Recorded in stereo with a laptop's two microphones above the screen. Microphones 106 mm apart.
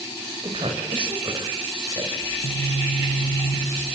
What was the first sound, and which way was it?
A woman speaking, 55° right (ahead or behind).